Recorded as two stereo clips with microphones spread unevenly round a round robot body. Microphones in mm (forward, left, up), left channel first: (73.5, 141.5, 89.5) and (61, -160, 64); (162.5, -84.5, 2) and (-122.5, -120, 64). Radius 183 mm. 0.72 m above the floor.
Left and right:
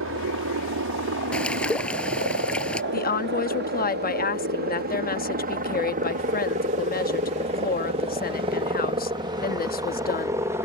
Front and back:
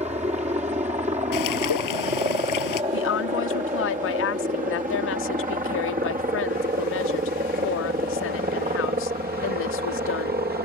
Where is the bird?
Straight ahead.